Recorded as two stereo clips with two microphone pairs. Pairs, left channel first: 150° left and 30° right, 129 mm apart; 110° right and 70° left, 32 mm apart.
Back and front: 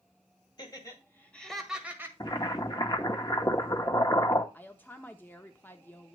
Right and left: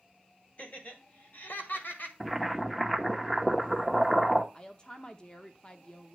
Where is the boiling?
175° left, 0.9 m.